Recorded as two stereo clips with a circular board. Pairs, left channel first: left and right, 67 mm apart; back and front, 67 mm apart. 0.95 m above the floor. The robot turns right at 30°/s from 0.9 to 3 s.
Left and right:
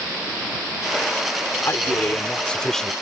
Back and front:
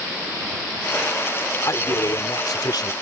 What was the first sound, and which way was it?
A man speaking, 140° left.